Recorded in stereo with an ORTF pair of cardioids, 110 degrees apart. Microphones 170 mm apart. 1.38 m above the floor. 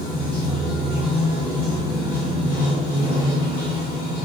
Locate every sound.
0.0 s running water: 70° left, 1.3 m